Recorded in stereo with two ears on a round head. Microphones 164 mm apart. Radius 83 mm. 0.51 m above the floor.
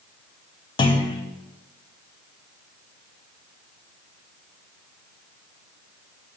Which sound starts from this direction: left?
A clunk, at 0.8 s.